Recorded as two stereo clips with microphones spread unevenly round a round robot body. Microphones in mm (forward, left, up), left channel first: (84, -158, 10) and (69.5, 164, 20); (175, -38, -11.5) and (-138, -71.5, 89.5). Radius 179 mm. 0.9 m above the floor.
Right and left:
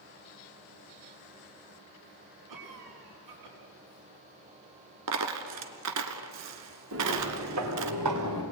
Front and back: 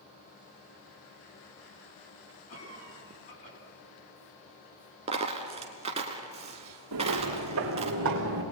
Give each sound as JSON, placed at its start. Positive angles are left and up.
{"t": 2.5, "sound": "a cough", "azimuth_deg": 75, "distance_m": 8.0}
{"t": 5.1, "sound": "a dropped coin", "azimuth_deg": 125, "distance_m": 1.5}
{"t": 6.9, "sound": "footsteps", "azimuth_deg": 145, "distance_m": 4.0}